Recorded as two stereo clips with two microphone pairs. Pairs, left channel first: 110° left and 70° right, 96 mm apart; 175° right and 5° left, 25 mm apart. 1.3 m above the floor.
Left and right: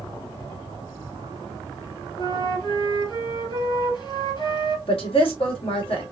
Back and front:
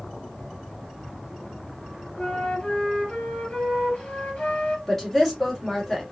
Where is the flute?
145° left, 3 m.